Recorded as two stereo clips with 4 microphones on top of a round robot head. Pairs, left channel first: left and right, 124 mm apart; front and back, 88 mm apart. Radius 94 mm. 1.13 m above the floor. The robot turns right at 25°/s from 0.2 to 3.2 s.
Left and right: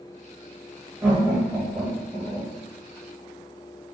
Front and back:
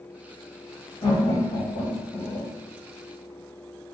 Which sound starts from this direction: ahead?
Laughter, at 1.0 s.